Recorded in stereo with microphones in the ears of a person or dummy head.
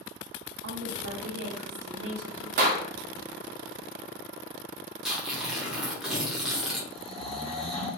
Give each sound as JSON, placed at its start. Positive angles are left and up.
{"t": 0.6, "sound": "a woman speaking", "side_deg": -70, "distance_m": 0.8}
{"t": 2.6, "sound": "a clap", "side_deg": -50, "distance_m": 0.5}
{"t": 5.0, "sound": "tearing paper", "side_deg": -5, "distance_m": 0.8}
{"t": 6.9, "sound": "snoring", "side_deg": 0, "distance_m": 0.7}